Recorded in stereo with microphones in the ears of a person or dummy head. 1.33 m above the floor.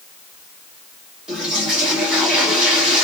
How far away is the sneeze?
No sneeze in this recording.